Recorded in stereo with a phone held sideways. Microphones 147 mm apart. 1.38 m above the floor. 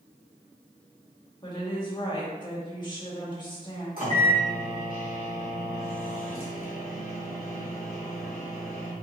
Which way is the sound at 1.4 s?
30° left (ahead or behind).